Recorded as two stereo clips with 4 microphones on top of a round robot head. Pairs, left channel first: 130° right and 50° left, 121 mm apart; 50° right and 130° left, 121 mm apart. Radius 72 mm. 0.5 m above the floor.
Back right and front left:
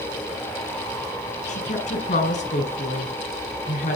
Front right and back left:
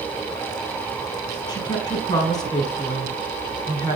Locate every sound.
1.5 s a woman speaking: 105° right, 5.5 m